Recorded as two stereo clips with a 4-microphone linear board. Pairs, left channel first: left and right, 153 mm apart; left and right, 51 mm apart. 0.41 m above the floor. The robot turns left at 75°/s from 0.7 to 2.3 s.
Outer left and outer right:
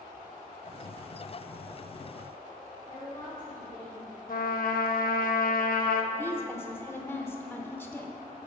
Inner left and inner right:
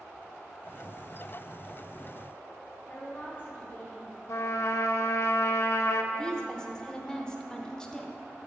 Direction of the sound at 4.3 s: 70° left (ahead or behind).